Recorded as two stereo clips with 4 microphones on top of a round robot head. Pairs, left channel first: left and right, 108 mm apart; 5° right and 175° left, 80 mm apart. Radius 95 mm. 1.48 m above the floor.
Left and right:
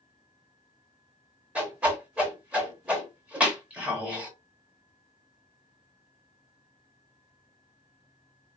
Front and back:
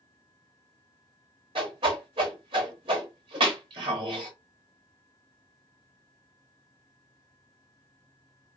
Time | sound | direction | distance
1.6 | a whoosh | 165° right | 0.7 m